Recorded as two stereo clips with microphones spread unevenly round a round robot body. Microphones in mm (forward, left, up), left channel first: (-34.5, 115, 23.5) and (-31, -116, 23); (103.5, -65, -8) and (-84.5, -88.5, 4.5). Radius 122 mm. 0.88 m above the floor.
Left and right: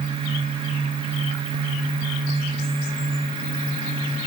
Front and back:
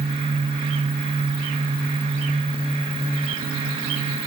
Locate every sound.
Only background noise.